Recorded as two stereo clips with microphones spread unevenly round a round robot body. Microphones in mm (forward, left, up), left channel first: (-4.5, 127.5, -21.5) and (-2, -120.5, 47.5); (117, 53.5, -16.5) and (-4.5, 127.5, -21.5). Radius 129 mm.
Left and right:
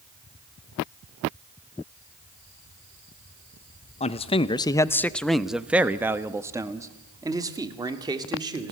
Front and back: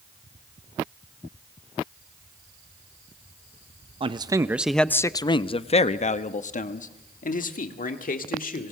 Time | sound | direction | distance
4.0 | a man speaking | 120° left | 0.7 m